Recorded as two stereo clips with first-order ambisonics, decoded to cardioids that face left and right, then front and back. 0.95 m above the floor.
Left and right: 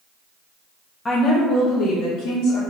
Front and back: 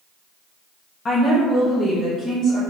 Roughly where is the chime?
No chime in this recording.